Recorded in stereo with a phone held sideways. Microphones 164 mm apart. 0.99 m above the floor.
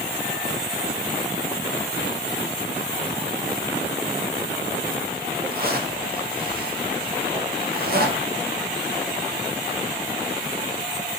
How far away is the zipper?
About 0.6 m.